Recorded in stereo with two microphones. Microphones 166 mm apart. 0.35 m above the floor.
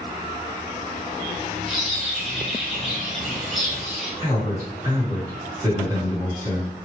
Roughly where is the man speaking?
Right.